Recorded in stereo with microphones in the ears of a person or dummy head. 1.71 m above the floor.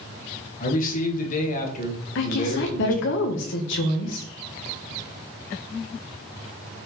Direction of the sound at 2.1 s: 60° left (ahead or behind).